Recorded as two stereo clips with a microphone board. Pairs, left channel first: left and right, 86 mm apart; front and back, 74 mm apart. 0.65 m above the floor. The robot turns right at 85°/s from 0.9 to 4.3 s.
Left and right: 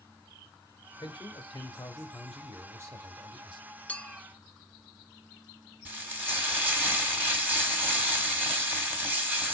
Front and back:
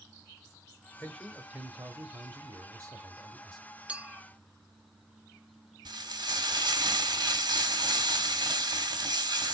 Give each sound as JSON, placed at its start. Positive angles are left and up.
{"t": 1.0, "sound": "a man speaking", "azimuth_deg": 65, "distance_m": 1.2}
{"t": 3.9, "sound": "a clink", "azimuth_deg": 130, "distance_m": 0.5}
{"t": 5.8, "sound": "frying", "azimuth_deg": -160, "distance_m": 1.8}